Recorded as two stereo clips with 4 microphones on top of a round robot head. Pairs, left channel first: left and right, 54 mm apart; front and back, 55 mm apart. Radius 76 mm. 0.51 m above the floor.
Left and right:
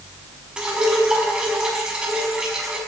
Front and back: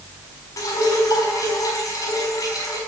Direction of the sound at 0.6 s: 15° right.